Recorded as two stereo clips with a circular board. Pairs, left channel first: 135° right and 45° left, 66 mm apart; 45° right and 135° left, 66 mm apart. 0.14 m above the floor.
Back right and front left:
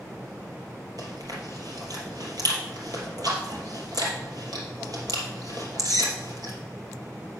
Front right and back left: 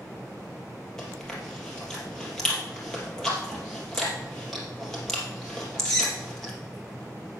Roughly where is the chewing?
Ahead left.